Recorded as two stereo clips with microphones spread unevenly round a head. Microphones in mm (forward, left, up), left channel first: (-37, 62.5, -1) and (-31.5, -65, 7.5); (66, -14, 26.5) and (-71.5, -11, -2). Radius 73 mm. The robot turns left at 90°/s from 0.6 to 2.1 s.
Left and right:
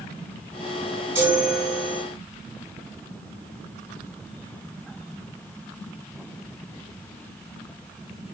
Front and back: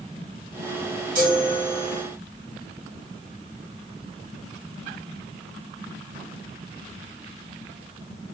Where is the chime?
160° right, 3 m; by 2.0 s 125° left, 3 m.